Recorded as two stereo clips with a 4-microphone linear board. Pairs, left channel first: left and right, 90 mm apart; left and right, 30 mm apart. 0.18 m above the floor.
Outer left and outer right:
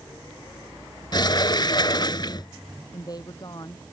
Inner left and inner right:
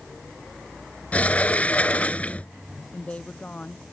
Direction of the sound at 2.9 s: 45° left (ahead or behind).